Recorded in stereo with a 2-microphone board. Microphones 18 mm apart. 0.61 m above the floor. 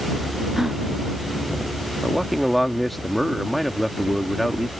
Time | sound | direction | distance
0.6 | a gasp | 20° right (ahead or behind) | ?
2.0 | a man speaking | 5° left (ahead or behind) | ?